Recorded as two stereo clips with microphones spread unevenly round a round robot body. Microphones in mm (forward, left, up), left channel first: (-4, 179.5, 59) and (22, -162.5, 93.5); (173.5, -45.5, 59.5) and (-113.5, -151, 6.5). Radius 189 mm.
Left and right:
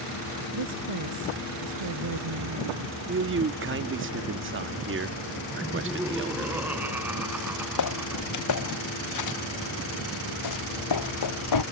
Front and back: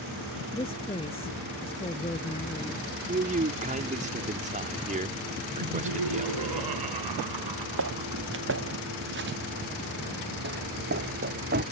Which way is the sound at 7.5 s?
140° left.